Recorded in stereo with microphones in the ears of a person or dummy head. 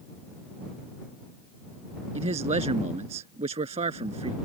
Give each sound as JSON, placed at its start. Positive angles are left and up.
{"t": 2.1, "sound": "a man speaking", "side_deg": -35}